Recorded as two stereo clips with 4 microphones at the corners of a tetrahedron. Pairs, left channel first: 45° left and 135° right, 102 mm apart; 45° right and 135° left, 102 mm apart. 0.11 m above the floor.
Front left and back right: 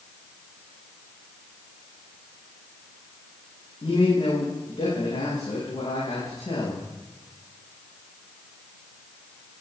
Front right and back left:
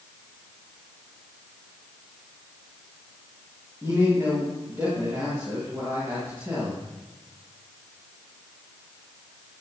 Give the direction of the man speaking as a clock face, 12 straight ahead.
10 o'clock.